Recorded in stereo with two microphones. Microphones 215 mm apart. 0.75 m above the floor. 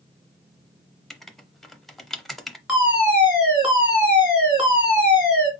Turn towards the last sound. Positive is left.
turn(degrees=-5)  # may be behind; listen again after turning